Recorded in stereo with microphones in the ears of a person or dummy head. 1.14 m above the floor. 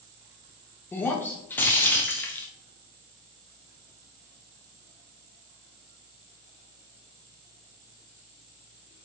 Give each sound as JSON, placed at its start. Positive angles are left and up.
{"t": 0.9, "sound": "breaking glass", "side_deg": 10, "distance_m": 0.5}